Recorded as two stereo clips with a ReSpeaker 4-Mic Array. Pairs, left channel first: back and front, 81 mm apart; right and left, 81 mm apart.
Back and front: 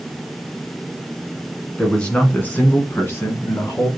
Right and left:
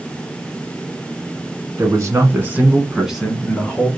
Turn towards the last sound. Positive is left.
turn(degrees=-150)